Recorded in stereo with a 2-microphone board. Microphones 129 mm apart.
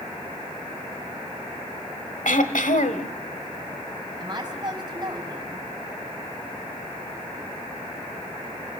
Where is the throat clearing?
80° left, 1.2 m.